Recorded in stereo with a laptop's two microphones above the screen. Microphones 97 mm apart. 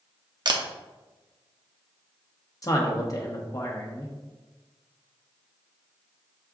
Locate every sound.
0.5 s a camera shutter: 50° right (ahead or behind), 0.6 m
2.6 s a man speaking: 35° left (ahead or behind), 1.0 m